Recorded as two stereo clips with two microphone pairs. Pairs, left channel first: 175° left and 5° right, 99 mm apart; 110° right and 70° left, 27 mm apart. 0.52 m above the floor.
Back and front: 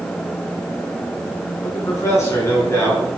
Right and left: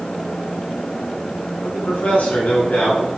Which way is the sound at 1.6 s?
125° right.